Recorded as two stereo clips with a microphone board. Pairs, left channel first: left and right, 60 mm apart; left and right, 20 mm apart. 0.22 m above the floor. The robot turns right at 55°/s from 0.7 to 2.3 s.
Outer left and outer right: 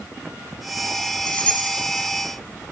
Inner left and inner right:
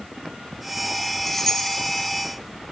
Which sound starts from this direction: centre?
Keys jangling, at 1.3 s.